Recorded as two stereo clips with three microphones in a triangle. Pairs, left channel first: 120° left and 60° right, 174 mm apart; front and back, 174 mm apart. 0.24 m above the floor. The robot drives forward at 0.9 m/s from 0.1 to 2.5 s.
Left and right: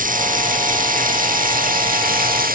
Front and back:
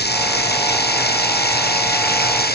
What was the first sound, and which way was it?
Running water, 20° right.